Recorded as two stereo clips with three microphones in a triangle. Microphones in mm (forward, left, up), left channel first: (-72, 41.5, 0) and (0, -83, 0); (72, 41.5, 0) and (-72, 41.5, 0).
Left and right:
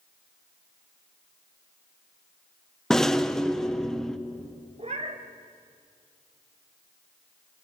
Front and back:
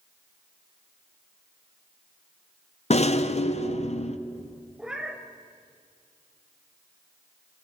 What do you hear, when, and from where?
2.9 s a rattle: 35° left, 0.7 m
4.8 s a cat meowing: 95° right, 1.8 m